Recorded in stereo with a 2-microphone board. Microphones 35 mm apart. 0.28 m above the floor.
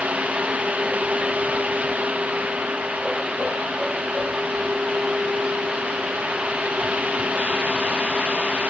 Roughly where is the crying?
I don't hear crying.